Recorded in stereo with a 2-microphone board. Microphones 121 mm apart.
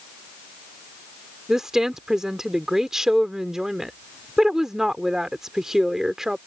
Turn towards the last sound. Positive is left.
turn(degrees=-5)  # may be behind; listen again after turning